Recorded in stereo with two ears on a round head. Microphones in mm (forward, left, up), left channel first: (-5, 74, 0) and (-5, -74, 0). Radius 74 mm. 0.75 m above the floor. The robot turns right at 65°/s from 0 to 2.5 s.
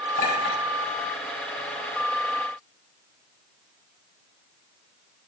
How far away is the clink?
About 4 m.